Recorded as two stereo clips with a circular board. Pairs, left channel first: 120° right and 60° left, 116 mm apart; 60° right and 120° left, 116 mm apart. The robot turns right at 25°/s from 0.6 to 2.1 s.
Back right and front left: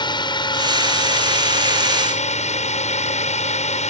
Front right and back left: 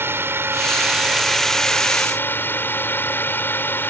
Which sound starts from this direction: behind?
A drone, at 0.0 s.